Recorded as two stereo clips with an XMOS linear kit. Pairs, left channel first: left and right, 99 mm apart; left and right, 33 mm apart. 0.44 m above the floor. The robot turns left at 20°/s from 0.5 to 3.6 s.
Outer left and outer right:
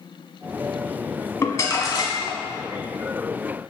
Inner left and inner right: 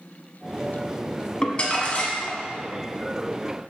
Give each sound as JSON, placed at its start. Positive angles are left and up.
{"t": 1.4, "sound": "crumpling", "side_deg": 30, "distance_m": 1.2}